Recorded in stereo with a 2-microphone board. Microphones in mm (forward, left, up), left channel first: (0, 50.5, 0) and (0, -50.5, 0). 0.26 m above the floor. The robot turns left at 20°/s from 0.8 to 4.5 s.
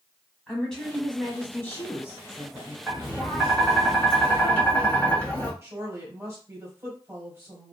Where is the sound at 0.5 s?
175° left, 1.1 m; by 2.8 s 135° left, 1.1 m.